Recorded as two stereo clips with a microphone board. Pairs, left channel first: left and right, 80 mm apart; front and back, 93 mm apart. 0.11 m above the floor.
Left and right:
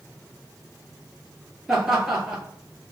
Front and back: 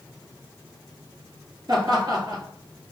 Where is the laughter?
175° right, 1.6 m.